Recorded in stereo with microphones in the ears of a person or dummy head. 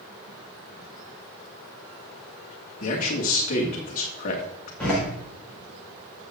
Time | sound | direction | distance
2.8 | a man speaking | 40° left (ahead or behind) | 2.5 m
4.8 | a door slam | 5° left (ahead or behind) | 5 m